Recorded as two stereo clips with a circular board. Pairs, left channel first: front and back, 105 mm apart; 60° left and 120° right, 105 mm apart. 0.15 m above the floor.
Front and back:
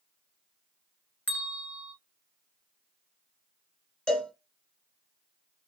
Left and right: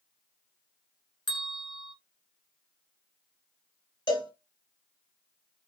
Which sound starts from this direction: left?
A cowbell, at 4.1 s.